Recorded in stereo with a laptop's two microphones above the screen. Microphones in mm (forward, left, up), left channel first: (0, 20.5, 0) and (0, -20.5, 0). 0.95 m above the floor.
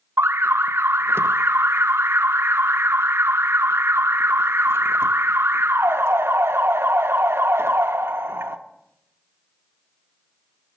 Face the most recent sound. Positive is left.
turn(degrees=-80)